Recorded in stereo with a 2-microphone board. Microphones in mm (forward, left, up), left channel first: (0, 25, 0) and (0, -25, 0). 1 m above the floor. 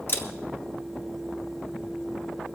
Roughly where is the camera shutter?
Left.